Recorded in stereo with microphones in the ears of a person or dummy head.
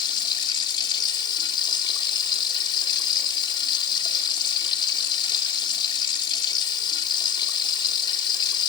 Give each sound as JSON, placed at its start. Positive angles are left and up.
{"t": 0.0, "sound": "running water", "side_deg": 25, "distance_m": 3.5}